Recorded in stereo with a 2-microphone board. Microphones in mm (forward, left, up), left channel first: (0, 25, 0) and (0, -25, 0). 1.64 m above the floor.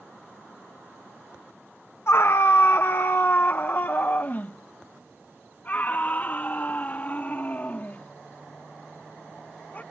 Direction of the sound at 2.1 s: 55° left (ahead or behind).